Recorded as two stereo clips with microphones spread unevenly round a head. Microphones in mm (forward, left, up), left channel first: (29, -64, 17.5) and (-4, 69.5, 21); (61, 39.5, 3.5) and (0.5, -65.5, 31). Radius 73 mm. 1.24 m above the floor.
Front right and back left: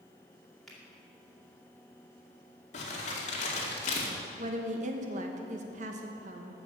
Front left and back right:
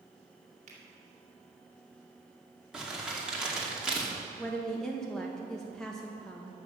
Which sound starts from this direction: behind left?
A woman speaking, at 4.4 s.